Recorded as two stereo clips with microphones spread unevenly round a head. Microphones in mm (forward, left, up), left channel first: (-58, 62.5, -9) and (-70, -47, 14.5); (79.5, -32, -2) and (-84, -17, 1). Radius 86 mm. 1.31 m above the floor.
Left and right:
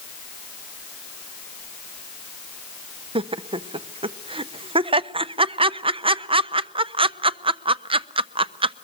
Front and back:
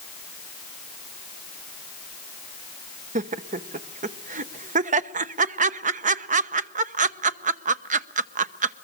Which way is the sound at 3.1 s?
140° right.